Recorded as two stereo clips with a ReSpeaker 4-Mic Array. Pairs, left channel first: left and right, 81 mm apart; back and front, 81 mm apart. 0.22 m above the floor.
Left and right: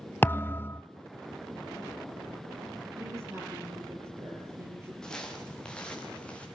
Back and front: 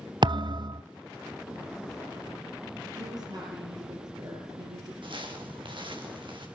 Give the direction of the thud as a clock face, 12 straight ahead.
11 o'clock.